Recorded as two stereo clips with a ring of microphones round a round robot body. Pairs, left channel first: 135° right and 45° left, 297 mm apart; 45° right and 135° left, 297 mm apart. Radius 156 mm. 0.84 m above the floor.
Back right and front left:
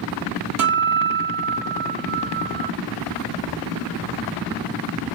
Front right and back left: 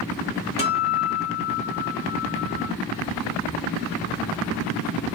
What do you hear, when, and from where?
0.6 s a guitar: 20° left, 1.8 m